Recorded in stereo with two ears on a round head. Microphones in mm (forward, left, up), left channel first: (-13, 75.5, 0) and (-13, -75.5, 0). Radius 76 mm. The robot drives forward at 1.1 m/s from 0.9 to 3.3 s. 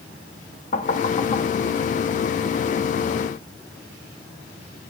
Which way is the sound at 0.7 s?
50° left (ahead or behind).